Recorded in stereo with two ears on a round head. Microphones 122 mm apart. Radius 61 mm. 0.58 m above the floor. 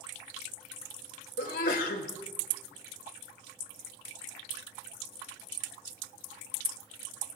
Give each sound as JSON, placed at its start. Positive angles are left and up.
{"t": 1.4, "sound": "a sneeze", "side_deg": 65, "distance_m": 2.5}